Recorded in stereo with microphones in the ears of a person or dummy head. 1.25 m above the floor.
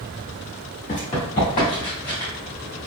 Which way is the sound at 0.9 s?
25° left (ahead or behind).